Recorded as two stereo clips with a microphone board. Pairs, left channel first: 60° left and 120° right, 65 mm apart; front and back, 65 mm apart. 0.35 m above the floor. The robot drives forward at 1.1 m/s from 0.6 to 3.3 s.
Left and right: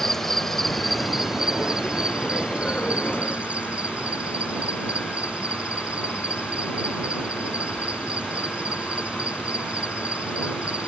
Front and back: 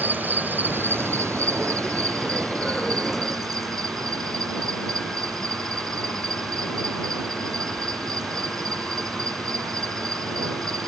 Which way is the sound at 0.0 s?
140° left.